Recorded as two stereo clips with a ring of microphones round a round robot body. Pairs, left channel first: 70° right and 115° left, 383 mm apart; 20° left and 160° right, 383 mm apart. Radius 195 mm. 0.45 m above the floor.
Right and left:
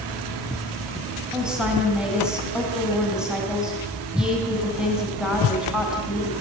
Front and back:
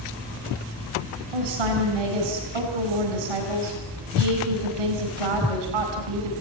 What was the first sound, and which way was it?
A woman speaking, 160° right.